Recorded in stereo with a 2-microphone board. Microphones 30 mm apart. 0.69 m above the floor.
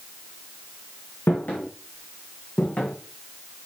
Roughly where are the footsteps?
Left.